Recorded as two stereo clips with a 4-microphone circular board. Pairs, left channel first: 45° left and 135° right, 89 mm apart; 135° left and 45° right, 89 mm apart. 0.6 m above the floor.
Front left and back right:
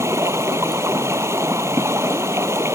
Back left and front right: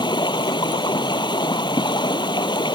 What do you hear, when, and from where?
0.0 s running water: 165° left